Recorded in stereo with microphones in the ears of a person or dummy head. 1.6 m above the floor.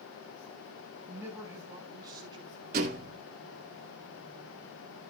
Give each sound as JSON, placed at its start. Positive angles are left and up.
{"t": 1.1, "sound": "a man speaking", "side_deg": -10, "distance_m": 5.5}
{"t": 2.7, "sound": "a thud", "side_deg": -45, "distance_m": 2.0}